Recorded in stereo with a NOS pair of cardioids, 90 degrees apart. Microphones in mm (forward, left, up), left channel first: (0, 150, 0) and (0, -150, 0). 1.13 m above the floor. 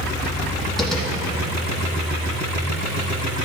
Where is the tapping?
Straight ahead, 3.5 m.